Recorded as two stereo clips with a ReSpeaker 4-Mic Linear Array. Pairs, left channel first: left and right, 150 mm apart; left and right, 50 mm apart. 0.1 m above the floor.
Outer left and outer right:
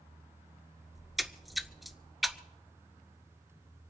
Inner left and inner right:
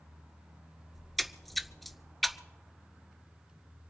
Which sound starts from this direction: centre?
A splash, at 0.9 s.